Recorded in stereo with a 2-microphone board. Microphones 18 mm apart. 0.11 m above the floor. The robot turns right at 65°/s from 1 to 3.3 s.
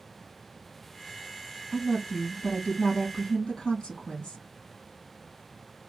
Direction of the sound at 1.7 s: 10° left.